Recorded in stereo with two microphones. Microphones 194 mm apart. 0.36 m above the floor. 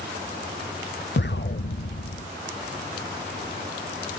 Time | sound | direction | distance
1.2 | an explosion | 65° left (ahead or behind) | 0.6 m